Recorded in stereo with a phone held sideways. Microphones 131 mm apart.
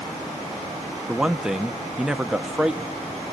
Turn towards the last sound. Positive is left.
turn(degrees=-5)  # may be behind; listen again after turning